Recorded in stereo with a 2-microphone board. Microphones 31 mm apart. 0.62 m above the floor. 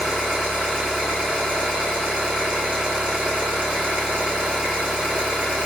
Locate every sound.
0.0 s an engine running: 30° right (ahead or behind), 1.7 m